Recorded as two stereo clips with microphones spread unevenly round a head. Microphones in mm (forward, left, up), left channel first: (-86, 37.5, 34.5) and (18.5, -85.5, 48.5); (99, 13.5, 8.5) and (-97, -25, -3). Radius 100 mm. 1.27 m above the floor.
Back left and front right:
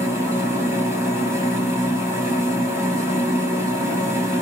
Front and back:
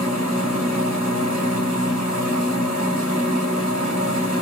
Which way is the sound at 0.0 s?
120° right.